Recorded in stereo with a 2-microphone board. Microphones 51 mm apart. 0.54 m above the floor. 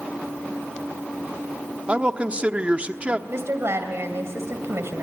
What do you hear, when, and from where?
1.9 s a man speaking: 25° right (ahead or behind), 1.0 m
3.3 s a woman speaking: 60° right (ahead or behind), 2.5 m